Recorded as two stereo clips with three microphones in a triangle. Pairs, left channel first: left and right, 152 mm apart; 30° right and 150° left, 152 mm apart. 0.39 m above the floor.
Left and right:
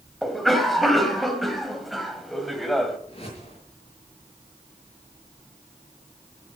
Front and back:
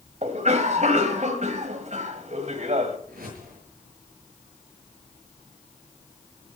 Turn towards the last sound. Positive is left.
turn(degrees=140)